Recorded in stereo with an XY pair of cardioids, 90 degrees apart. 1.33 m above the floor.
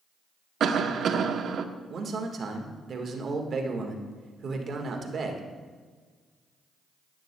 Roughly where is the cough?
Ahead right.